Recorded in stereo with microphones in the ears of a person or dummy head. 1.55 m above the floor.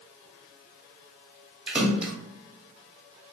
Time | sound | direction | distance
1.7 | a splash | 5° right (ahead or behind) | 1.0 m